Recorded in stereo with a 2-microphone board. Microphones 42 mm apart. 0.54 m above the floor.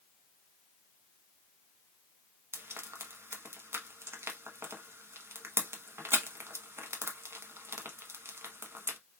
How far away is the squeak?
No squeak in this recording.